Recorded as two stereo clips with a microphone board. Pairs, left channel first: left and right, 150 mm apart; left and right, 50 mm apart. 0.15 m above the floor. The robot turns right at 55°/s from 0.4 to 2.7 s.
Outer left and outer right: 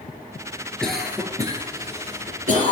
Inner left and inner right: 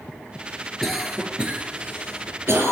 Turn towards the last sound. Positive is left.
turn(degrees=-60)  # may be behind; listen again after turning